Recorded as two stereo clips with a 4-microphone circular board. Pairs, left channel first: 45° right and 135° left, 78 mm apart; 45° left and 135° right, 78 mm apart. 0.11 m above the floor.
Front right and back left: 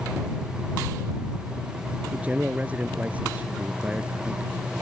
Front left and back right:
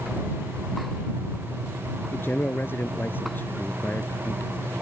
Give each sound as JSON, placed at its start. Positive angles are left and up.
{"t": 2.1, "sound": "a man speaking", "azimuth_deg": 80}